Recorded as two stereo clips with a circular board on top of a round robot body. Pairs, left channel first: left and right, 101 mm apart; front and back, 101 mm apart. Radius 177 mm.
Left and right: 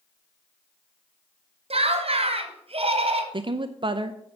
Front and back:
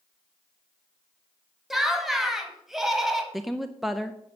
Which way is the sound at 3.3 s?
90° right.